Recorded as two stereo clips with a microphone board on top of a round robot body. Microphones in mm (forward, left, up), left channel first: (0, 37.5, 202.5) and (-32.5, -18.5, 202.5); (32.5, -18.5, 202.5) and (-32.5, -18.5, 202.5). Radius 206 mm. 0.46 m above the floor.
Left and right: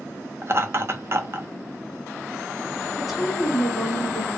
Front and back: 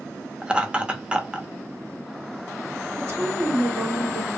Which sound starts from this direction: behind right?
Laughter, at 0.4 s.